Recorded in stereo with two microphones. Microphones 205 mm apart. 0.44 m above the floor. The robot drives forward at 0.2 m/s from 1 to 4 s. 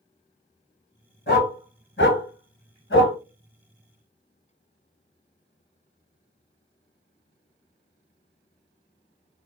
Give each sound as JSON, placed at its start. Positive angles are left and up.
{"t": 1.3, "sound": "a dog barking", "side_deg": 60, "distance_m": 1.2}